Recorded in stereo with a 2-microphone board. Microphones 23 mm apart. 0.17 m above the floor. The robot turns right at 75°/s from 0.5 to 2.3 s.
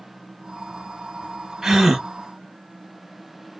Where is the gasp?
30° right (ahead or behind), 1.1 m; by 2.1 s 20° right (ahead or behind), 1.1 m.